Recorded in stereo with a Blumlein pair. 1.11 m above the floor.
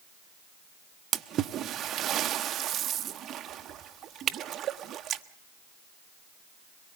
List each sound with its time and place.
1.1 s a splash: 30° right, 0.7 m